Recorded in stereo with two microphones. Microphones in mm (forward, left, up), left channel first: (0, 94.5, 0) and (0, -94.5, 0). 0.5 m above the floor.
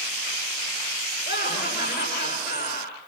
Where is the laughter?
60° left (ahead or behind), 10 m.